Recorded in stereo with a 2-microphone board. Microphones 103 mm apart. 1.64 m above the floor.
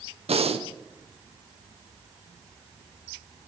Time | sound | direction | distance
0.3 | breathing | 75° right (ahead or behind) | 1.0 m